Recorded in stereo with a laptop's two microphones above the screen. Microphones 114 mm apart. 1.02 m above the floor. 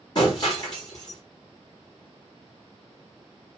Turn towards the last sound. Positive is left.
turn(degrees=35)  # may be behind; listen again after turning